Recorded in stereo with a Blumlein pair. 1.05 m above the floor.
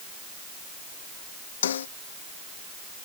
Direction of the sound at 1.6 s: 65° left.